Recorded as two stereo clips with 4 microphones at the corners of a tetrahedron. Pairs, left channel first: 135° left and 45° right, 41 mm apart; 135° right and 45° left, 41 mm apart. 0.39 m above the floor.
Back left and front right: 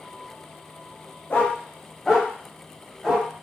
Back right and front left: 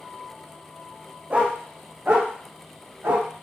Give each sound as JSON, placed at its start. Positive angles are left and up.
{"t": 1.3, "sound": "a dog barking", "azimuth_deg": 95, "distance_m": 0.7}